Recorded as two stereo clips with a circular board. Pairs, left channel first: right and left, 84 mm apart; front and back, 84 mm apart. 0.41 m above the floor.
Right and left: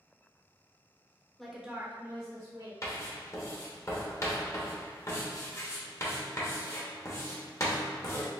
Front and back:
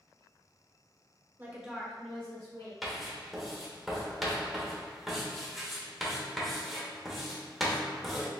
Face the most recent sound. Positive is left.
turn(degrees=-95)